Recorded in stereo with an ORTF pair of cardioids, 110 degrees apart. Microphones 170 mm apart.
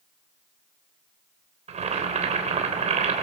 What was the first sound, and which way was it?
Boiling, 40° right.